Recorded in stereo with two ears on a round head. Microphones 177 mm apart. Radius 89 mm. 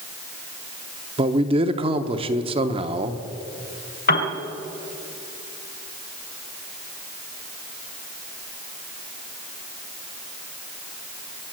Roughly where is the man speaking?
Right.